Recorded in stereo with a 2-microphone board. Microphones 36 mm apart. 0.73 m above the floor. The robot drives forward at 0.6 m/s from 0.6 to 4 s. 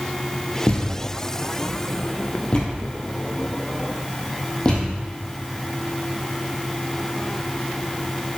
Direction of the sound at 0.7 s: 55° left (ahead or behind).